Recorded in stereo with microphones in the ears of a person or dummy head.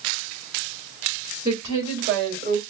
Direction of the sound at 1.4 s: 30° right (ahead or behind).